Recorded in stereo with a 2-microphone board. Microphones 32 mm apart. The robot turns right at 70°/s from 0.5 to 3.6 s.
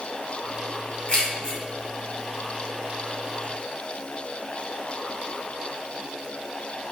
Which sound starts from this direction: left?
Keys jangling, at 1.1 s.